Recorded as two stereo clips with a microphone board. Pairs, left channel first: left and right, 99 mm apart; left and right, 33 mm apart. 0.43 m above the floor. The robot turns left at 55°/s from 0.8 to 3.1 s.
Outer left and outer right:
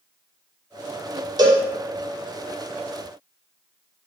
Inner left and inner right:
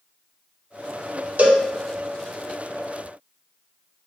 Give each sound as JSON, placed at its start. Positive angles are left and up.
{"t": 1.4, "sound": "a cowbell", "side_deg": -45, "distance_m": 0.6}